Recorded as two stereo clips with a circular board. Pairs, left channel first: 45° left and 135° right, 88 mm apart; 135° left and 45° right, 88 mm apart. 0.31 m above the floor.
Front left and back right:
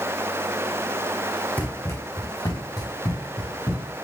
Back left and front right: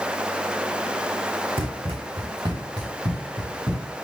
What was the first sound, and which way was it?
Running footsteps, 30° right.